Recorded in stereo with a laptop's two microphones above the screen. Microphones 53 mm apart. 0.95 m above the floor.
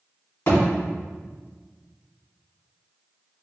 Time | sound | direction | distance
0.5 | a thud | 60° left (ahead or behind) | 1.8 m